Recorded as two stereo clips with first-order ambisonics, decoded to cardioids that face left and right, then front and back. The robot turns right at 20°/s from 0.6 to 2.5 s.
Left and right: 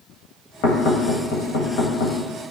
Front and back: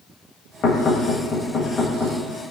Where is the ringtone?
No ringtone in this recording.